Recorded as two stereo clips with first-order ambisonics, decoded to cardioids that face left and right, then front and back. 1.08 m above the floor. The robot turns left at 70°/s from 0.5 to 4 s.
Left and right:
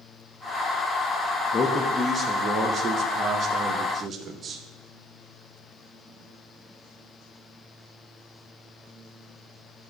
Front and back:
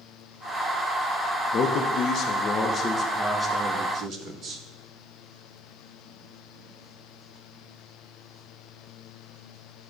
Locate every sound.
1.5 s a man speaking: 30° left, 0.6 m; by 4.6 s 140° right, 0.6 m